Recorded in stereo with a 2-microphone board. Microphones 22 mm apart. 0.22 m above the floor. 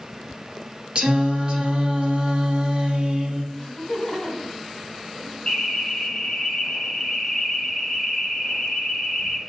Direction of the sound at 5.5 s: 30° left (ahead or behind).